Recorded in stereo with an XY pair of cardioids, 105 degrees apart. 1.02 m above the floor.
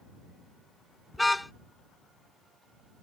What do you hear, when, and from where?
1.1 s a car horn: 5° left